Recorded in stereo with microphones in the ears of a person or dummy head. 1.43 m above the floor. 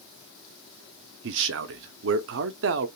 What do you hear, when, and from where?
1.2 s a man speaking: 65° right (ahead or behind), 0.5 m